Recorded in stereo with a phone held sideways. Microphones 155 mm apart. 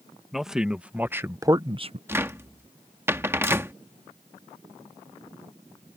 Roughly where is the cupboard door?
Centre.